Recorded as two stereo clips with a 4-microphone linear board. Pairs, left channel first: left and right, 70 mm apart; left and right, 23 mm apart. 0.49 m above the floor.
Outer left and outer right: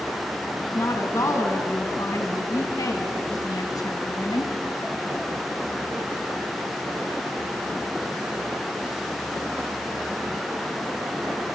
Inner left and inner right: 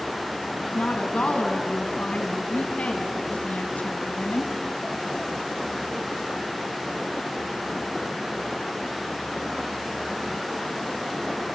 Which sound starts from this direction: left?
A woman speaking, at 0.7 s.